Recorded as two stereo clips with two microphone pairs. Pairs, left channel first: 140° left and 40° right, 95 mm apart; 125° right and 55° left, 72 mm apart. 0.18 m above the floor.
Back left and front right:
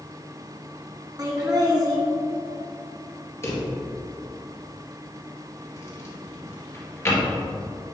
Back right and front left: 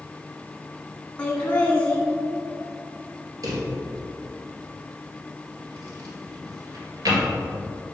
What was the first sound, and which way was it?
Laughter, 60° right.